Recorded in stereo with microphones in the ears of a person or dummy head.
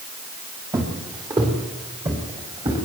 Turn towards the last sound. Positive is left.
turn(degrees=-25)  # may be behind; listen again after turning